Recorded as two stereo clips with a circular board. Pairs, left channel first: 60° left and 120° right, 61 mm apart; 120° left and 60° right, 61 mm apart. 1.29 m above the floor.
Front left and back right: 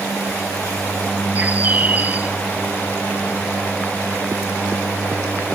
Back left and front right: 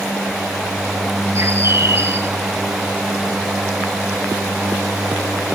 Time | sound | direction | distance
1.4 | a bird | 70° right | 1.5 m